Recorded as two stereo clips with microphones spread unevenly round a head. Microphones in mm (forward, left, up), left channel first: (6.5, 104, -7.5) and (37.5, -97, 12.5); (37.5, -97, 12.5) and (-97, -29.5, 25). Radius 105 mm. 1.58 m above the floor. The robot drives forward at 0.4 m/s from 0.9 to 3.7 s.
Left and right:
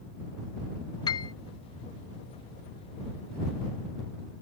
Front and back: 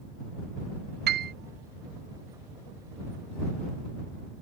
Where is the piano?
170° left; by 1.3 s 175° left.